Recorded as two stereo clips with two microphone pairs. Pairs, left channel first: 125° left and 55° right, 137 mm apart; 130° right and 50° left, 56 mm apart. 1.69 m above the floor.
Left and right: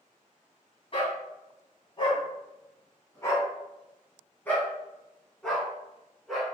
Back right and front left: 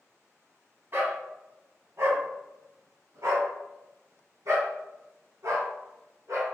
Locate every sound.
0.9 s a dog barking: 85° left, 3 m; by 6.5 s 35° left, 4 m